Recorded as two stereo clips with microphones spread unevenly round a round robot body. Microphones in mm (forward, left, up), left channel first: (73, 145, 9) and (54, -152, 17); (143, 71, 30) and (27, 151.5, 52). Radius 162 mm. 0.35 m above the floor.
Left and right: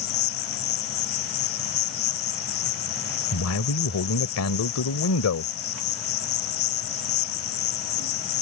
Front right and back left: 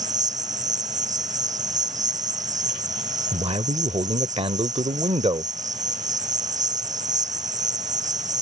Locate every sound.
0.0 s an insect: 120° left
3.3 s a man speaking: 95° left